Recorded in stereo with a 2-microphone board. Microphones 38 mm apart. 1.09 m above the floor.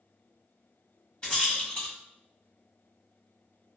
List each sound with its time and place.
1.2 s a rattle: 30° left (ahead or behind), 1.6 m